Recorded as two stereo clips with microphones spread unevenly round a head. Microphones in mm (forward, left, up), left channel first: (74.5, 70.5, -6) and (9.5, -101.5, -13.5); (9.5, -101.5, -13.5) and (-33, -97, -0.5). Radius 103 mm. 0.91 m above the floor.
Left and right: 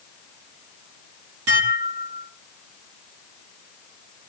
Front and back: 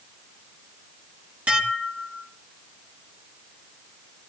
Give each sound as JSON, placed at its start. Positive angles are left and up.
{"t": 1.5, "sound": "dishes clattering", "azimuth_deg": -125, "distance_m": 4.5}